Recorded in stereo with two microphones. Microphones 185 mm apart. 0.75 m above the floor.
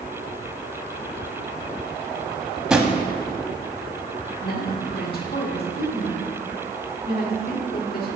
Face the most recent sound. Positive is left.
turn(degrees=55)  # may be behind; listen again after turning